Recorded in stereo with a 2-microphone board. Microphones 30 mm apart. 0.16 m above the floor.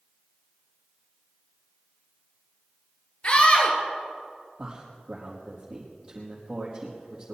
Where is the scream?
40° left (ahead or behind), 3 m.